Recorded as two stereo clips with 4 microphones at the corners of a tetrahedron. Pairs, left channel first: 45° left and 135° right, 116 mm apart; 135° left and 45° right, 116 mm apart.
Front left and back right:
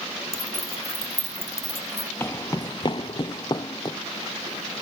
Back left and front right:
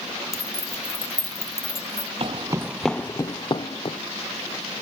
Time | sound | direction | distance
0.3 | keys jangling | 70° left | 1.3 m
2.2 | footsteps | 20° right | 0.6 m